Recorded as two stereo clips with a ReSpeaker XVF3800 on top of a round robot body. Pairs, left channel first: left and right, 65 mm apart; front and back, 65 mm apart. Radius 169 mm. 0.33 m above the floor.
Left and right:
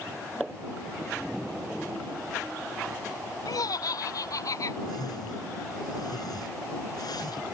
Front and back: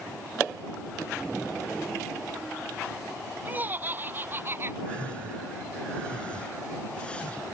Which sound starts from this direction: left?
A whoosh, at 4.9 s.